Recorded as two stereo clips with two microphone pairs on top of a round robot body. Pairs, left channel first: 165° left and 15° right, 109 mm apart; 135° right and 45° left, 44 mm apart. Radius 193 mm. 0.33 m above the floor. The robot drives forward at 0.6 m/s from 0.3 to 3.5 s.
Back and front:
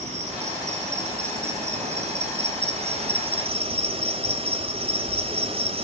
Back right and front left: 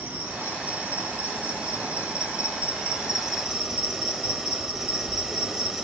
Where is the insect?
10° right, 2.5 m; by 5.8 s 35° right, 1.0 m.